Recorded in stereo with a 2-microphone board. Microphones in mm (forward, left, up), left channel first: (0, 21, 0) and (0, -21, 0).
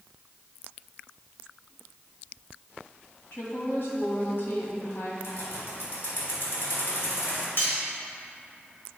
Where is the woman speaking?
65° left (ahead or behind), 1.5 m.